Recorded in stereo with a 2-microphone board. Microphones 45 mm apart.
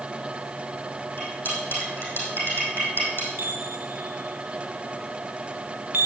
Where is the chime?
55° right (ahead or behind), 1.0 m.